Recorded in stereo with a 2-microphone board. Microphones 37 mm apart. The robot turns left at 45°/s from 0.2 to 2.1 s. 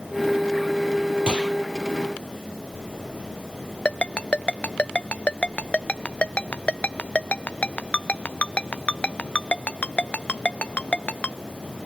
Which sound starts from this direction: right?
A gunshot, at 1.3 s.